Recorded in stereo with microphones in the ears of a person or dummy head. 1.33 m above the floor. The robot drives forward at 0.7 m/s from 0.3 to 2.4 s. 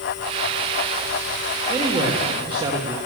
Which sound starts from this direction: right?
A man speaking, at 1.7 s.